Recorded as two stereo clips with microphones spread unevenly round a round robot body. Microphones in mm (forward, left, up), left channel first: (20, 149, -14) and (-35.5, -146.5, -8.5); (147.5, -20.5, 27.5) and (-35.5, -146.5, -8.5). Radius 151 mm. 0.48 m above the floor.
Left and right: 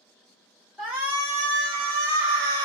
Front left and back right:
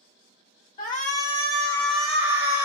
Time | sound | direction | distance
0.8 | a shout | 10° right | 1.0 m